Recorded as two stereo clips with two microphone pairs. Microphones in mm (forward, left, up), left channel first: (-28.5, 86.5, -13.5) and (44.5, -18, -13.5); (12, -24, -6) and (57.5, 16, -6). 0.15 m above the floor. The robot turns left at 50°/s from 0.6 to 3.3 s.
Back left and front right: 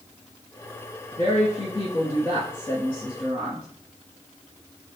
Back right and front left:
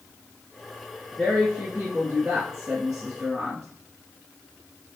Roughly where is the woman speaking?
Behind left.